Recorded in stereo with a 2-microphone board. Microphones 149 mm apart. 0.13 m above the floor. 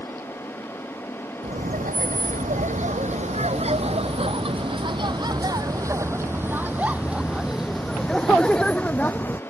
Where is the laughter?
65° right (ahead or behind); by 9.4 s 15° left (ahead or behind).